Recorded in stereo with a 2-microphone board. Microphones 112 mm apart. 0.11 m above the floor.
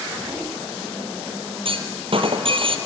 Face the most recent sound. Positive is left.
turn(degrees=-60)  # may be behind; listen again after turning